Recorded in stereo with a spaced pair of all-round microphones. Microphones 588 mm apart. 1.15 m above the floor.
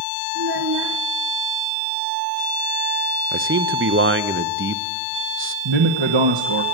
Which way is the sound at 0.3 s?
45° right (ahead or behind).